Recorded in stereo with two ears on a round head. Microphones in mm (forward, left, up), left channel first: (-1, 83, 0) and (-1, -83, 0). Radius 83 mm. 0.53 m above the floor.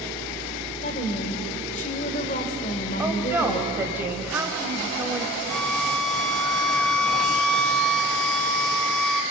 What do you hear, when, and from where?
0.8 s a woman speaking: 40° left (ahead or behind), 2.5 m
3.0 s a woman speaking: 10° right (ahead or behind), 2.5 m
5.5 s a violin: 5° left (ahead or behind), 0.7 m